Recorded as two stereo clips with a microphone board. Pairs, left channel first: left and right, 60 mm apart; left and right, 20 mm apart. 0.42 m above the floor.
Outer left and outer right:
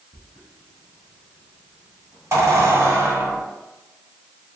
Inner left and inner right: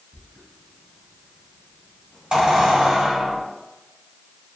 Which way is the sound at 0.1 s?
55° right (ahead or behind).